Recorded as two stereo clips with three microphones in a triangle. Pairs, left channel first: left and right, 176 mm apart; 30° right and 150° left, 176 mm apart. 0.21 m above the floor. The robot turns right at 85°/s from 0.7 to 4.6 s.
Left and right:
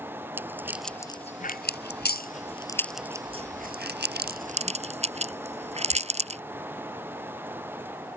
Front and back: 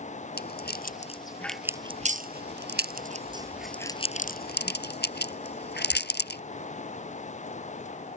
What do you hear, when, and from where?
0.4 s a rattle: 10° right; by 6.4 s 40° right